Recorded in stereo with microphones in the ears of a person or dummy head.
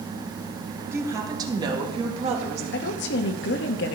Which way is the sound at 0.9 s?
10° right (ahead or behind).